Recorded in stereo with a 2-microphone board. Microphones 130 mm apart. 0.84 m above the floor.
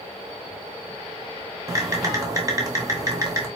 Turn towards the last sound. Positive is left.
turn(degrees=-25)  # may be behind; listen again after turning